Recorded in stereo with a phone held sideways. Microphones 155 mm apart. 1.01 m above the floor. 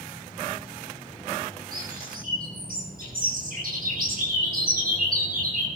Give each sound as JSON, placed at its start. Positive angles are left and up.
{"t": 1.7, "sound": "a bird", "side_deg": -75, "distance_m": 9.5}